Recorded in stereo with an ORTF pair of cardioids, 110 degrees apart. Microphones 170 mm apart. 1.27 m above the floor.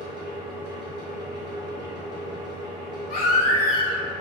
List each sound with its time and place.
0.0 s a fan: 25° right, 0.9 m
3.1 s a baby crying: 60° left, 0.8 m